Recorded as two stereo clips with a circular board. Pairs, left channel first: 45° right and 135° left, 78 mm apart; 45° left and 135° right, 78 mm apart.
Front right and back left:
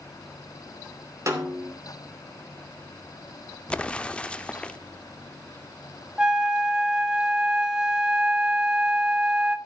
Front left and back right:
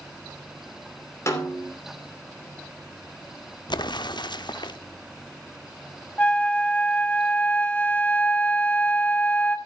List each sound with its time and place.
1.3 s a snare drum: 95° left, 2.5 m
3.7 s an explosion: 30° left, 0.6 m
6.2 s a flute: 75° left, 1.1 m